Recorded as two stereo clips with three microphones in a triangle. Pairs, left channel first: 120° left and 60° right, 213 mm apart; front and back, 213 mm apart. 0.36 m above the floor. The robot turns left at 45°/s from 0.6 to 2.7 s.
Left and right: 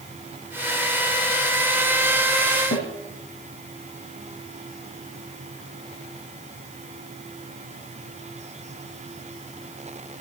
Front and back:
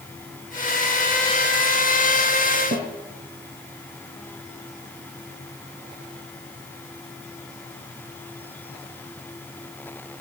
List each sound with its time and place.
2.7 s a snare drum: 135° left, 5.5 m